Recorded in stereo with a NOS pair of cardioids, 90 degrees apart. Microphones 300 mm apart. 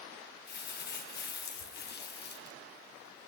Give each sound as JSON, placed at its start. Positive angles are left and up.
{"t": 0.5, "sound": "crumpling", "azimuth_deg": 35, "distance_m": 0.7}